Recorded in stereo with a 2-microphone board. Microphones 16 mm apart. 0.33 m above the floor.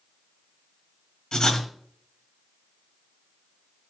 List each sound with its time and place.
1.3 s writing: 60° left (ahead or behind), 1.9 m